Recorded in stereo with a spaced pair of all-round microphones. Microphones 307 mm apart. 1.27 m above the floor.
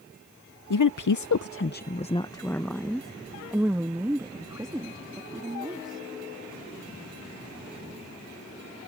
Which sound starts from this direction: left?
A woman speaking, at 0.7 s.